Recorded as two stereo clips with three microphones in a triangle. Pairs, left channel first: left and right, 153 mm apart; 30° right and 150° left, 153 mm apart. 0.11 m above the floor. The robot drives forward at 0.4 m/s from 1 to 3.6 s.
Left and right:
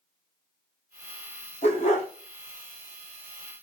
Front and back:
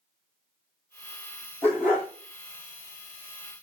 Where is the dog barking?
45° left, 1.4 m; by 2.1 s 55° left, 1.3 m.